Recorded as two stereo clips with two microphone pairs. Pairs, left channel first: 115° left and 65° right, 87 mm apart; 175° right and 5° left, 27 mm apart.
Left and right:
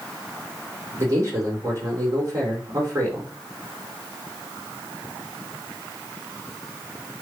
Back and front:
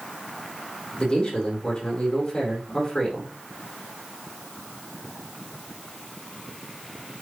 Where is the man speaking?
115° right, 5 m.